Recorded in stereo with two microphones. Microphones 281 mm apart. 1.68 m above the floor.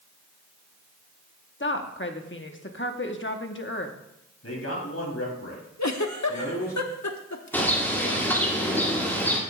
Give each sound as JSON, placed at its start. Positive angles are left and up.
{"t": 1.6, "sound": "a woman speaking", "side_deg": 45, "distance_m": 1.1}
{"t": 4.4, "sound": "a man speaking", "side_deg": 55, "distance_m": 3.5}
{"t": 5.8, "sound": "a giggle", "side_deg": 75, "distance_m": 0.9}
{"t": 7.5, "sound": "a bird", "side_deg": 10, "distance_m": 2.0}